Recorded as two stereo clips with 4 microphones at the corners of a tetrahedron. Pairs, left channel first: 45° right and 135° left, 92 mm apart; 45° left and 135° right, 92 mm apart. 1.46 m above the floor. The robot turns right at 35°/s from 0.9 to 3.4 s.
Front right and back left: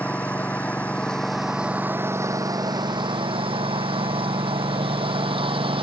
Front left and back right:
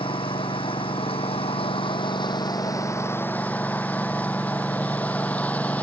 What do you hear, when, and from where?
0.0 s a lawn mower: 30° left; by 5.8 s 120° left